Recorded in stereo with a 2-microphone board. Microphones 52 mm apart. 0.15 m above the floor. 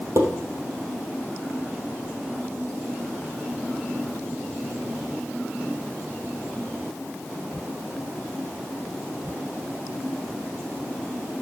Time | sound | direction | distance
0.2 | dishes clattering | 70° right (ahead or behind) | 3 m